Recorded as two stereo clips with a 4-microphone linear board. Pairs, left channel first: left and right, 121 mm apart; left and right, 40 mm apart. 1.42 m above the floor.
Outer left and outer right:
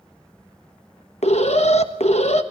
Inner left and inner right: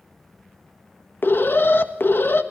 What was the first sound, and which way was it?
An alarm, 60° left (ahead or behind).